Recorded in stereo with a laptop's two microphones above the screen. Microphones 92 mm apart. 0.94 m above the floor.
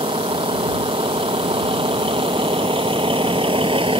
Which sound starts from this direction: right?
A vehicle, at 0.0 s.